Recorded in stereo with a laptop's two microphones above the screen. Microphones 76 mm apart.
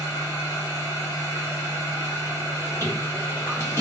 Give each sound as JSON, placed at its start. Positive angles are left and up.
{"t": 0.0, "sound": "a machine running", "side_deg": 40, "distance_m": 1.3}